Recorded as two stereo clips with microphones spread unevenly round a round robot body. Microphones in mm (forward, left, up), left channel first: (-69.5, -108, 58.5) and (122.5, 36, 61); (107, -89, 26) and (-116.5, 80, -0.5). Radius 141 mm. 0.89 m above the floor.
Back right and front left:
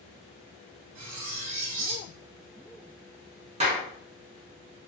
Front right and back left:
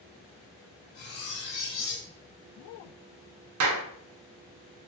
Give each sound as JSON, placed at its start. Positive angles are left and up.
{"t": 0.9, "sound": "cutlery clinking", "azimuth_deg": 20, "distance_m": 0.8}
{"t": 3.6, "sound": "a clap", "azimuth_deg": 105, "distance_m": 0.5}